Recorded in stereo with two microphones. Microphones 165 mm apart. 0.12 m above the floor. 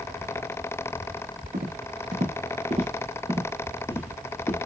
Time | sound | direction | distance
1.5 | footsteps | 65° right (ahead or behind) | 1.7 m